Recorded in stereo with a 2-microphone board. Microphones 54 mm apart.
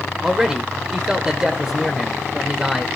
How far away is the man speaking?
About 1.4 m.